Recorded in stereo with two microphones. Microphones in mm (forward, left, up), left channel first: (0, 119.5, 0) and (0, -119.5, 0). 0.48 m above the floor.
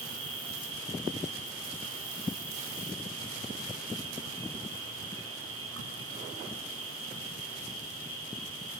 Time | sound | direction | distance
0.0 | an insect | 70° right (ahead or behind) | 5 m